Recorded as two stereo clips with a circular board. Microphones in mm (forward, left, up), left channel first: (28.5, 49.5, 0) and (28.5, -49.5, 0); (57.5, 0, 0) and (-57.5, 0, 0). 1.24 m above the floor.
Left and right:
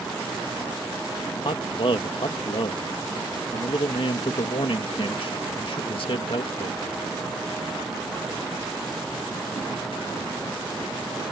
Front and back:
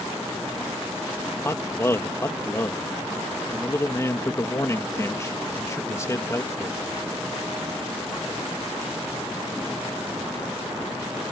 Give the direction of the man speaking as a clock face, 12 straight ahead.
10 o'clock.